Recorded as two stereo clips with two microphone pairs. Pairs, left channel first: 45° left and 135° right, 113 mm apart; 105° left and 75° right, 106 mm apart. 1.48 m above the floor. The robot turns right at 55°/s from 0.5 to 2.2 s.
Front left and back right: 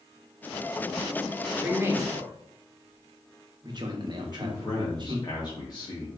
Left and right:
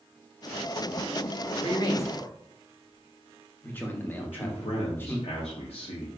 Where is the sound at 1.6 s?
145° left, 0.7 m; by 5.2 s straight behind, 0.7 m.